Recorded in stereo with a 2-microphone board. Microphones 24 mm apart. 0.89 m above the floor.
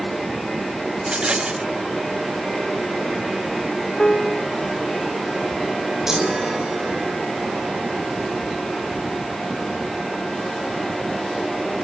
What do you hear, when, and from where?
1.0 s a rattle: 50° right (ahead or behind)
4.0 s a piano: 35° left (ahead or behind)
6.1 s a chime: 20° right (ahead or behind)